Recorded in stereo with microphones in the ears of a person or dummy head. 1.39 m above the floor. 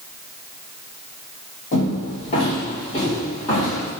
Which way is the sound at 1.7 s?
45° left (ahead or behind).